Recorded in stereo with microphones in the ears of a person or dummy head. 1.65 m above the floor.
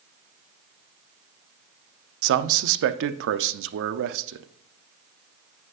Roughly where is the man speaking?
Right.